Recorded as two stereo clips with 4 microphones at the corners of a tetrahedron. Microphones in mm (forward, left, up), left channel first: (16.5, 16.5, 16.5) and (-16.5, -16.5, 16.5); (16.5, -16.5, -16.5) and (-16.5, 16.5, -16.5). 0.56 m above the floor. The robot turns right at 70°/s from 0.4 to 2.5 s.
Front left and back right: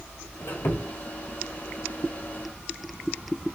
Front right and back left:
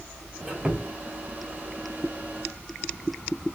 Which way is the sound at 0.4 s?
50° left.